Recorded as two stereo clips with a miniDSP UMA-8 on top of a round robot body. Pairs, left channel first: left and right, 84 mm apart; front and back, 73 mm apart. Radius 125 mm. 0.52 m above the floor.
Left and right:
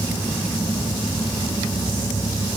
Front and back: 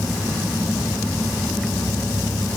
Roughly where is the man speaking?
I don't hear a man speaking.